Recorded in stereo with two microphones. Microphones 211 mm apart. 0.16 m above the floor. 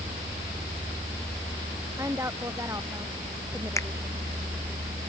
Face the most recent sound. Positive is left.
turn(degrees=15)  # may be behind; listen again after turning